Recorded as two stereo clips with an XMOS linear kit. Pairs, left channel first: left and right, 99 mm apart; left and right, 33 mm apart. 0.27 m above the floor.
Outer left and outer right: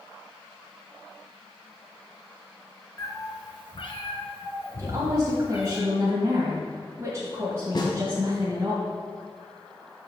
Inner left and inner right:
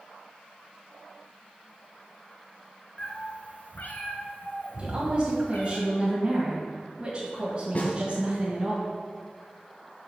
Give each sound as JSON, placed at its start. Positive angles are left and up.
{"t": 3.0, "sound": "a cat meowing", "side_deg": 30, "distance_m": 1.1}
{"t": 4.8, "sound": "a woman speaking", "side_deg": -30, "distance_m": 1.5}
{"t": 7.8, "sound": "a snare drum", "side_deg": 50, "distance_m": 2.0}